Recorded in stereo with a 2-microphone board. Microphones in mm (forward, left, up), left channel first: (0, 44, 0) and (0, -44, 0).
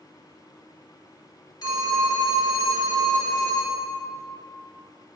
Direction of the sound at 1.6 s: 50° left (ahead or behind).